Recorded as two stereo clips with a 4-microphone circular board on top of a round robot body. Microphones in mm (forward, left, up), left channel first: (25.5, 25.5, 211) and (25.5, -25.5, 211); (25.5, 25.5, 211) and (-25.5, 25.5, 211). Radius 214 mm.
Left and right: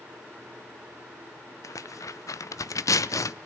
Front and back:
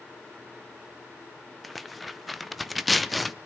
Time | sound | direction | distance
1.6 | tearing paper | 90° left | 0.8 m